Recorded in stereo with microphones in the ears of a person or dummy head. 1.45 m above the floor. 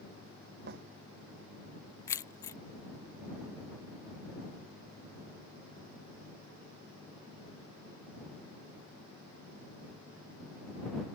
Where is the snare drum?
55° right (ahead or behind).